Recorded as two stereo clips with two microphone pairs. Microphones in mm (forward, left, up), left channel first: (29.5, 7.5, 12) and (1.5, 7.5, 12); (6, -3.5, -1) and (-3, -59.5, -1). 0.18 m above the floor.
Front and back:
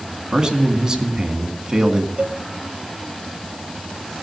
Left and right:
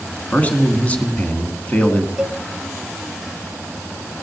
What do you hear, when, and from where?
0.3 s a man speaking: 135° left, 1.7 m
2.2 s a cowbell: 170° right, 0.6 m